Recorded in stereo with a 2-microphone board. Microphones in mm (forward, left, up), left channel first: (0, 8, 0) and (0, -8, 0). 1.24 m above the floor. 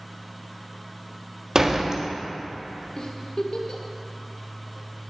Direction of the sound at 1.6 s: 35° right (ahead or behind).